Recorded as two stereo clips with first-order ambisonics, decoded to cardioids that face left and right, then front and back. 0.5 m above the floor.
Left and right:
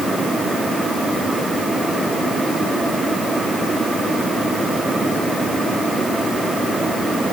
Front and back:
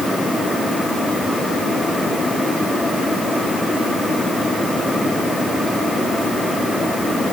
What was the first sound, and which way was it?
Only background noise.